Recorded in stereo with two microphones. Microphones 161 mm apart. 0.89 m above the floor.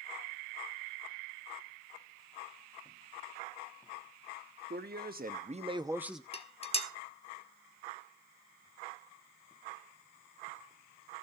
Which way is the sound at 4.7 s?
75° right (ahead or behind).